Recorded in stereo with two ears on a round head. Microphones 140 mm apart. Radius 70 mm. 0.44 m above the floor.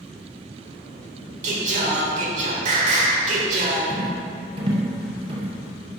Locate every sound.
1.4 s singing: 45° right (ahead or behind), 1.4 m
3.9 s a rattle: 35° right (ahead or behind), 1.9 m